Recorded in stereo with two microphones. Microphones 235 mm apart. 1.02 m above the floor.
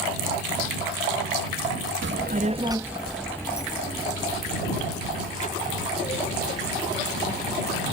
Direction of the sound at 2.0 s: 55° right (ahead or behind).